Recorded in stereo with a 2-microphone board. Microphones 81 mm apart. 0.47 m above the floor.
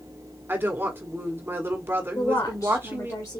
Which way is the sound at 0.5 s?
25° right (ahead or behind).